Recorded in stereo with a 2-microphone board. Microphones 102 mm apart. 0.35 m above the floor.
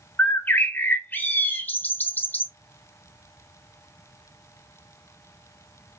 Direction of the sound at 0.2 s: 20° left (ahead or behind).